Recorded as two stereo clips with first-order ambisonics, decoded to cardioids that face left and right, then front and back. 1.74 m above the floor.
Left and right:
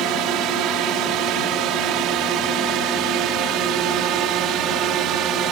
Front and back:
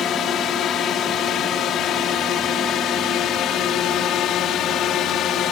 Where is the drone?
55° right; by 5.5 s 50° right.